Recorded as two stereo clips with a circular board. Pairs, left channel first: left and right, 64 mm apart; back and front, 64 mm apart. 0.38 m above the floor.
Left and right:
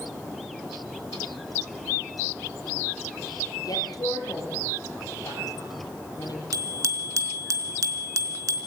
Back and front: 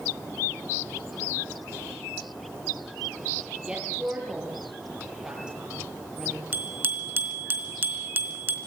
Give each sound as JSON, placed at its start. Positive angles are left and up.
{"t": 3.6, "sound": "a woman speaking", "azimuth_deg": 75, "distance_m": 8.5}
{"t": 6.5, "sound": "a bicycle bell", "azimuth_deg": -60, "distance_m": 3.5}